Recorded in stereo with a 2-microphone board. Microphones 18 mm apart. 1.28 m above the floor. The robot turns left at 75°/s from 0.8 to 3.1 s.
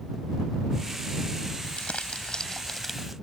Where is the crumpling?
100° left; by 3.1 s 10° right.